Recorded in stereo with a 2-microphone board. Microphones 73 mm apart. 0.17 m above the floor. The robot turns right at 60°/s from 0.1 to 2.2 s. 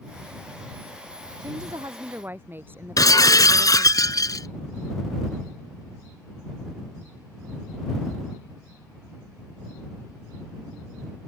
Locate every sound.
1.4 s a woman speaking: 75° right; by 4.0 s 30° right
3.0 s breaking glass: 60° left (ahead or behind)